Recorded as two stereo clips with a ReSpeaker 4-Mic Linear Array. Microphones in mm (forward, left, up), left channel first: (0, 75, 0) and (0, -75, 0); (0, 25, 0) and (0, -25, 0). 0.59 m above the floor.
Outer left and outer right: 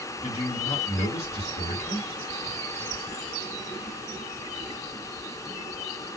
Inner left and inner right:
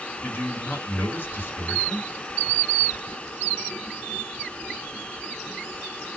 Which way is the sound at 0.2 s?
45° left (ahead or behind).